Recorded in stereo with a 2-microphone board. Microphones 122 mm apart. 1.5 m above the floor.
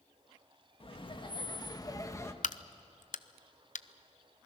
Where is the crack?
85° left, 0.5 m.